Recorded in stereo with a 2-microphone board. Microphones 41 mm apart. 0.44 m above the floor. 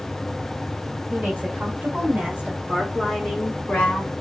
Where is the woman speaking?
50° right (ahead or behind), 2 m; by 4.1 s 35° left (ahead or behind), 1.2 m.